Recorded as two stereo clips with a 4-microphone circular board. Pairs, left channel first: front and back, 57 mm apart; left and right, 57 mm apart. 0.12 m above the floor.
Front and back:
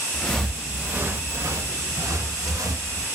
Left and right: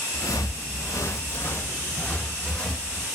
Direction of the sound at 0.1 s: 75° left.